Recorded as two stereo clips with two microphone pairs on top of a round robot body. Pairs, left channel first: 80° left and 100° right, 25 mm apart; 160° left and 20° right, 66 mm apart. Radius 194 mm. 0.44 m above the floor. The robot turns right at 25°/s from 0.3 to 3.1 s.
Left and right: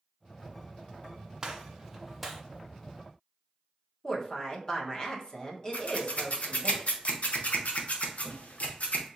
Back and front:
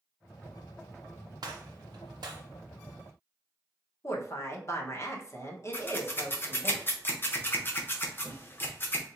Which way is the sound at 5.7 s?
105° left.